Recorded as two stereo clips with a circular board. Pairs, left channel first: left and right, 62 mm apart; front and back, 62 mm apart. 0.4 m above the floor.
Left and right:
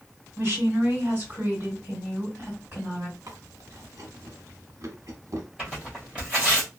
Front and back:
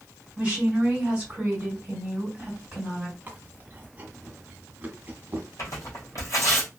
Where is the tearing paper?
15° right, 1.5 m.